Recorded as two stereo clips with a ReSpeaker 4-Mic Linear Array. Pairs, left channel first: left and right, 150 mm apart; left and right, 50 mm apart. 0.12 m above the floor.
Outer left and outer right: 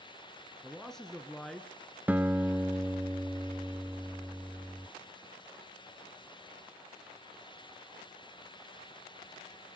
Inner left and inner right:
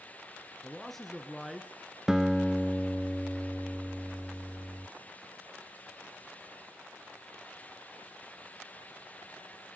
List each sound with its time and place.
0.6 s a man speaking: 5° left (ahead or behind), 1.1 m
2.1 s a guitar: 10° right (ahead or behind), 0.5 m